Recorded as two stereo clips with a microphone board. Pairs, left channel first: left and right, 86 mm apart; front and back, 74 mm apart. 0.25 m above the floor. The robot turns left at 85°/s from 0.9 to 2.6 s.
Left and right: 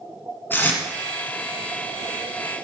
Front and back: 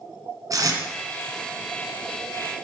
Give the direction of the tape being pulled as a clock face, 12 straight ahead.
7 o'clock.